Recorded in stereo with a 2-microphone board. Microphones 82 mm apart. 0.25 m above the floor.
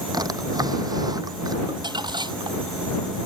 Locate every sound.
0.1 s a drawer: 50° right (ahead or behind)
1.7 s crumpling: 60° right (ahead or behind)